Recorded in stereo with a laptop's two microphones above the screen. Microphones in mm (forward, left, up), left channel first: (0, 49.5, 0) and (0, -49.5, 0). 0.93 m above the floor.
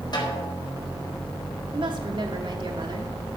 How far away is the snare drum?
About 4.5 m.